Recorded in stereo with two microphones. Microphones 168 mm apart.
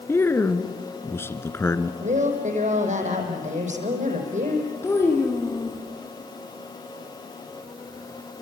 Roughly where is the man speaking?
Centre.